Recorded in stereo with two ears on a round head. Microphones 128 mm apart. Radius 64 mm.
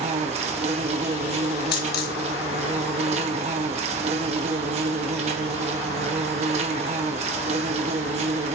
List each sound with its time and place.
0.0 s an insect: 45° right (ahead or behind), 1.0 m
1.7 s a dropped coin: 70° left (ahead or behind), 1.6 m